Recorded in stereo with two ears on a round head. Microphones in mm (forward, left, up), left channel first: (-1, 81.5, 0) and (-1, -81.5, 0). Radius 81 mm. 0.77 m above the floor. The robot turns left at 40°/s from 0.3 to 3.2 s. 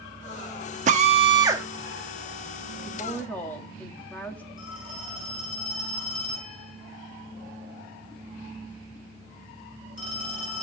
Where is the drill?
130° right, 1.2 m; by 1.6 s 165° right, 1.2 m.